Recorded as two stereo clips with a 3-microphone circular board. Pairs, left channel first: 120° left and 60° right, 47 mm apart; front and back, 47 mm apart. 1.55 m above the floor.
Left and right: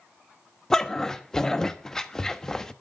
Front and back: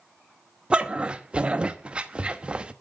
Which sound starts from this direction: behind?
A dog barking, at 0.7 s.